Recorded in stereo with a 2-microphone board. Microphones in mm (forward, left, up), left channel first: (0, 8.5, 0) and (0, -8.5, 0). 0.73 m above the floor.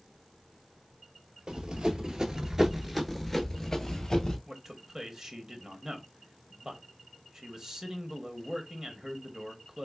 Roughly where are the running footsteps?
Right.